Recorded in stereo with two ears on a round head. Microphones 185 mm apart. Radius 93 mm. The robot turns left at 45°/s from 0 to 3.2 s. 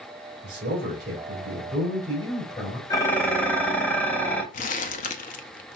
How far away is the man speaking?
About 3 m.